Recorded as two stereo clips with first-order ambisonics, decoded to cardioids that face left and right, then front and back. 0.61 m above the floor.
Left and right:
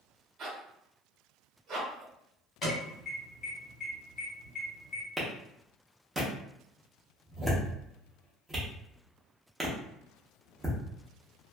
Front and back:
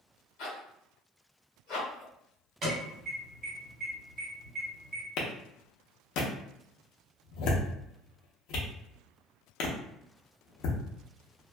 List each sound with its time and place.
0.4 s a zipper: 35° right, 1.0 m
2.6 s an alarm: 140° left, 1.9 m
5.2 s a clap: 10° right, 0.7 m